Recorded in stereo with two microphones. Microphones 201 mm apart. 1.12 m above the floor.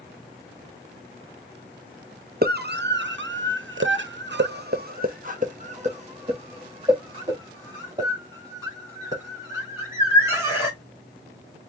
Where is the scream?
55° right (ahead or behind), 1.0 m; by 10.8 s 15° right (ahead or behind), 3.5 m.